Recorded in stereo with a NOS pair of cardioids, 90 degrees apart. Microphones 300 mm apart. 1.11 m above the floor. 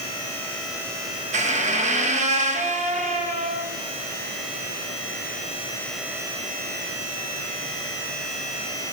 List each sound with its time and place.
1.3 s a squeak: 25° right, 0.7 m